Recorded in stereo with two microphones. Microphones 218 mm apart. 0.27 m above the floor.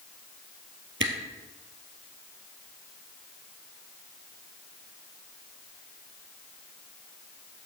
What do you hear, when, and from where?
1.0 s a camera shutter: 65° right (ahead or behind), 2 m